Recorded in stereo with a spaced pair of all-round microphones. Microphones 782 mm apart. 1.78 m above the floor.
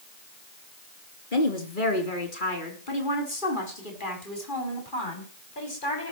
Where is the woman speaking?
75° left (ahead or behind), 3.5 m; by 6.1 s 80° left, 7 m.